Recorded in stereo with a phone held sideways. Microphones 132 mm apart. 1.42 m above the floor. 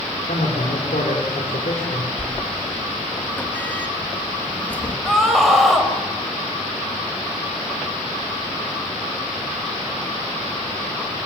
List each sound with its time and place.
0.3 s a man speaking: 80° left, 5 m
2.2 s a sliding door: 15° left (ahead or behind), 2.5 m
5.0 s a scream: centre (ahead or behind), 5.5 m